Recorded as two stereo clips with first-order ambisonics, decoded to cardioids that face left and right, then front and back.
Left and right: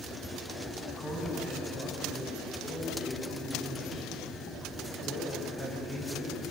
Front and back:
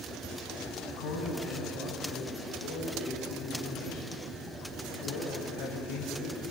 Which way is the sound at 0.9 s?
20° left.